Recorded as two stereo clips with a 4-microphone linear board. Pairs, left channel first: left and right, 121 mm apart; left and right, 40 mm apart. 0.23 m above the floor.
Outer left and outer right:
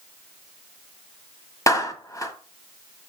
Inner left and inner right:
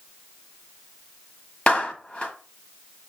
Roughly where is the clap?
Left.